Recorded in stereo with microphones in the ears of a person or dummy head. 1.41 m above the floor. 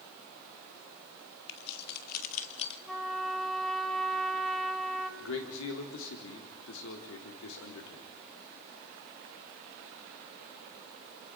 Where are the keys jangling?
65° left (ahead or behind), 2 m; by 2.8 s 35° left (ahead or behind), 1.7 m.